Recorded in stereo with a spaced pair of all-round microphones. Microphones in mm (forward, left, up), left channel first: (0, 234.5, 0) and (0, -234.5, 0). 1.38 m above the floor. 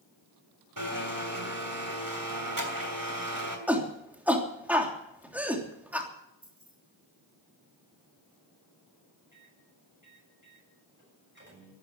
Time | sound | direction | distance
0.8 | a blender | 45° right (ahead or behind) | 3 m
3.7 | a shout | 5° right (ahead or behind) | 3 m
6.4 | keys jangling | 30° right (ahead or behind) | 8 m
9.3 | a microwave | 25° right (ahead or behind) | 8.5 m